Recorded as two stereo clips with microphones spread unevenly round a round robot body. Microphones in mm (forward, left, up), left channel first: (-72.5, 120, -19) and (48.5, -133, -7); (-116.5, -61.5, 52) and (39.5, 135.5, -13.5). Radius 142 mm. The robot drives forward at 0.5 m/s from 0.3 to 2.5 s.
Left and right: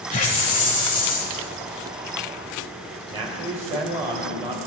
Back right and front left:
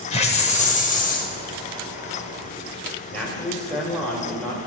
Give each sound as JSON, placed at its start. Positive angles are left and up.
{"t": 0.1, "sound": "a hiss", "azimuth_deg": 160, "distance_m": 1.1}
{"t": 3.1, "sound": "a man speaking", "azimuth_deg": -15, "distance_m": 1.4}